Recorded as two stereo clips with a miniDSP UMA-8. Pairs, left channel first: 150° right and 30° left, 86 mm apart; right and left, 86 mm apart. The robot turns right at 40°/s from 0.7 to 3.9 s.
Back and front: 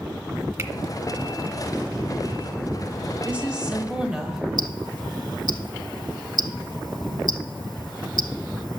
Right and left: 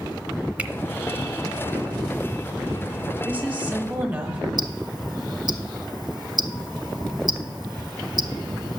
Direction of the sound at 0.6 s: 30° left.